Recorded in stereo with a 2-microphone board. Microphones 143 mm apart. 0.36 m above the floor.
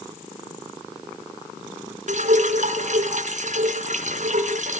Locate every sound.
2.1 s dripping: 60° right (ahead or behind), 2 m